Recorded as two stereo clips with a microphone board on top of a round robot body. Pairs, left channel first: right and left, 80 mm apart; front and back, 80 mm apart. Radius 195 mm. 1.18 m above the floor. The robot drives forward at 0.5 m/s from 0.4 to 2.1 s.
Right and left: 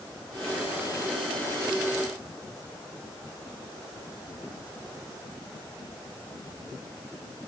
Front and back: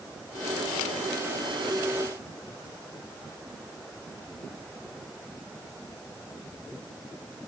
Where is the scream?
I don't hear a scream.